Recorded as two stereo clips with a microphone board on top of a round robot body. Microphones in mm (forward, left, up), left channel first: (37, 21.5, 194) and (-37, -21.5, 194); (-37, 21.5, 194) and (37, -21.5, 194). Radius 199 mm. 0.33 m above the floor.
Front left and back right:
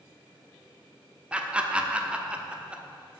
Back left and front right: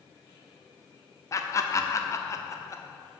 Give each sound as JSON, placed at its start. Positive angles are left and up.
{"t": 1.3, "sound": "laughter", "azimuth_deg": 140, "distance_m": 1.3}